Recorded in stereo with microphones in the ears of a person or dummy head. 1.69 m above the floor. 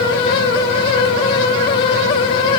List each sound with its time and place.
Only background noise.